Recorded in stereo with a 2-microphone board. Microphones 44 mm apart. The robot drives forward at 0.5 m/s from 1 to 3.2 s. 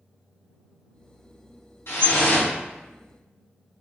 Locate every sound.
1.9 s dripping: 65° left (ahead or behind), 1.4 m